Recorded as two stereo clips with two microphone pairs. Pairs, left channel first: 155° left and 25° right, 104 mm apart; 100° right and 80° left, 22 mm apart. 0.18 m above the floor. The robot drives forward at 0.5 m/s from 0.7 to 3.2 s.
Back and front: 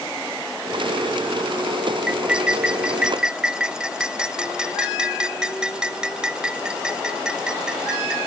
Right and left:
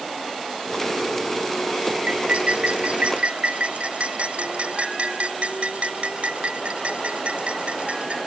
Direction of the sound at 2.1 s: 55° left.